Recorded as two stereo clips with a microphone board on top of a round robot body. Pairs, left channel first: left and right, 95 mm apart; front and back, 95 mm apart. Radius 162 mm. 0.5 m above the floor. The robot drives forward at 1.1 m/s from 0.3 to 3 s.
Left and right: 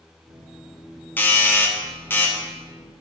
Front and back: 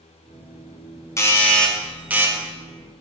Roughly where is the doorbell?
Ahead left.